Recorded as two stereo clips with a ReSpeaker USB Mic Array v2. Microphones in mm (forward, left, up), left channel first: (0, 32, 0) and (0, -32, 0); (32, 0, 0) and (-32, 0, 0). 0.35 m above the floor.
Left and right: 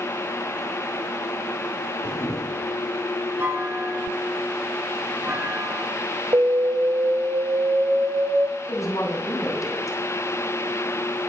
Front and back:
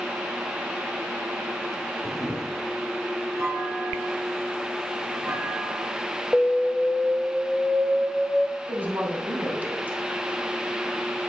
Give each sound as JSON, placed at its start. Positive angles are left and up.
{"t": 2.0, "sound": "a camera shutter", "azimuth_deg": 85, "distance_m": 4.0}
{"t": 3.4, "sound": "a clunk", "azimuth_deg": -150, "distance_m": 7.5}
{"t": 6.3, "sound": "an alarm", "azimuth_deg": -85, "distance_m": 1.1}
{"t": 8.7, "sound": "a woman speaking", "azimuth_deg": 120, "distance_m": 2.5}